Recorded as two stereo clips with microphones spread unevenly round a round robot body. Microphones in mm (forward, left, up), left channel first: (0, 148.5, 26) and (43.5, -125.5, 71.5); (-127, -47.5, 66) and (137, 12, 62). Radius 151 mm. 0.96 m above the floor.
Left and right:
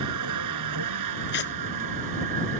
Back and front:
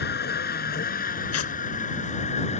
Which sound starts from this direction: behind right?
A vehicle, at 0.0 s.